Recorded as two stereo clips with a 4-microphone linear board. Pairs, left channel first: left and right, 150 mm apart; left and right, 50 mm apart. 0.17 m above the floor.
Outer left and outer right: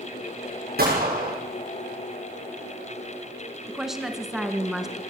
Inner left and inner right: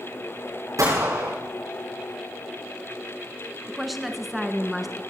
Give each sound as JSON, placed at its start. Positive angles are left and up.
{"t": 0.8, "sound": "a gunshot", "side_deg": -85, "distance_m": 7.0}
{"t": 3.7, "sound": "a woman speaking", "side_deg": 0, "distance_m": 1.6}